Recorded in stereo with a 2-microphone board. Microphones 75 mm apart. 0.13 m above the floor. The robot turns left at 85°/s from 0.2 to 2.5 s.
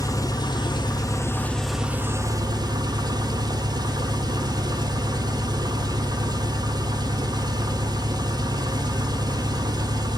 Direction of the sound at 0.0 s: 125° left.